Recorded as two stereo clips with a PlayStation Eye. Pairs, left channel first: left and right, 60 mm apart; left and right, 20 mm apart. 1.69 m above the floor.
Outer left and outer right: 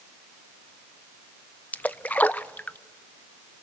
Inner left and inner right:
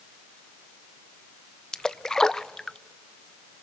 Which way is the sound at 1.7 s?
25° left (ahead or behind).